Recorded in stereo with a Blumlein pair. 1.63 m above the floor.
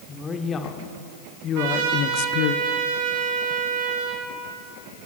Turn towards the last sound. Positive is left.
turn(degrees=-50)